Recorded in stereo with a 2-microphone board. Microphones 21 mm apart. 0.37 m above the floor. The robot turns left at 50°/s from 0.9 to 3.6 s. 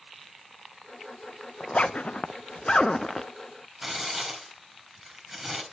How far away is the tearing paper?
About 4 m.